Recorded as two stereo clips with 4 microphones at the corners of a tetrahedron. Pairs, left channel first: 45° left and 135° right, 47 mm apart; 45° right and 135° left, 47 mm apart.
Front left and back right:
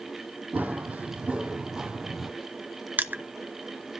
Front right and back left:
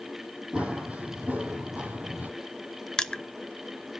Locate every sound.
0.5 s running footsteps: 170° right, 1.9 m; by 2.3 s 140° left, 1.5 m
3.0 s crushing: 110° right, 0.5 m